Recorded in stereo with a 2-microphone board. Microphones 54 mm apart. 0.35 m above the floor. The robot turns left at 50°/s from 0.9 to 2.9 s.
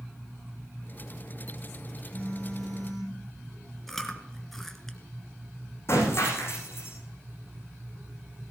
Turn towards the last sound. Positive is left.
turn(degrees=50)  # may be behind; listen again after turning